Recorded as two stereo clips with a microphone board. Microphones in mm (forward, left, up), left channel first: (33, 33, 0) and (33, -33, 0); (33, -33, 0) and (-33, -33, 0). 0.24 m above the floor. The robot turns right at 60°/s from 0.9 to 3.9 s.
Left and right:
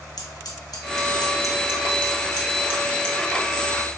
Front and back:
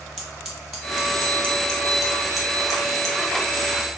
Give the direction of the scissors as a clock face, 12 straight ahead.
9 o'clock.